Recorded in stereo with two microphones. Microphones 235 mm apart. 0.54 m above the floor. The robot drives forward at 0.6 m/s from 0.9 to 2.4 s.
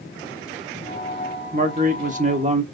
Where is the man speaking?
35° right (ahead or behind), 1.0 m; by 2.6 s 30° right (ahead or behind), 1.1 m.